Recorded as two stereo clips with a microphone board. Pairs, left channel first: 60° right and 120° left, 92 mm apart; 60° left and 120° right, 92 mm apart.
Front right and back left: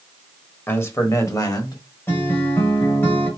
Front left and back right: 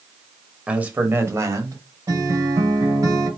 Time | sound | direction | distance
0.7 | a man speaking | 60° right | 1.0 m
2.1 | a guitar | 105° right | 1.6 m